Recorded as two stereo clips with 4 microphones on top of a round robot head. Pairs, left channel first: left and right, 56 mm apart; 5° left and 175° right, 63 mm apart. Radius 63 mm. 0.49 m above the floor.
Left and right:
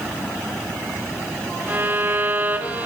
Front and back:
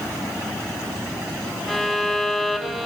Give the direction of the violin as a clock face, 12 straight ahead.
3 o'clock.